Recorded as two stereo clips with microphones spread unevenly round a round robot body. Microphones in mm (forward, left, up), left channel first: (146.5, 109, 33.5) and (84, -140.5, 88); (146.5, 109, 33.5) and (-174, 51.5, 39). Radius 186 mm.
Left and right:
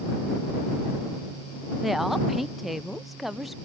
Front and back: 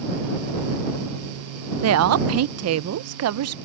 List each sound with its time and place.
1.8 s a woman speaking: 155° left